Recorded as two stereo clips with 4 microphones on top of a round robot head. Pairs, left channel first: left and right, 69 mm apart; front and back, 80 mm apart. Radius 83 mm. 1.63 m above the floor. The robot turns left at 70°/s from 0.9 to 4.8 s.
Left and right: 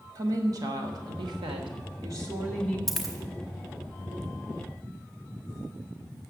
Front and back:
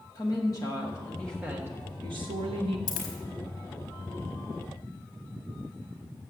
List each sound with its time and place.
0.1 s a woman speaking: 55° right, 1.3 m; by 2.8 s 170° left, 1.3 m
2.9 s a dropped coin: 5° left, 1.0 m; by 3.1 s 15° right, 1.0 m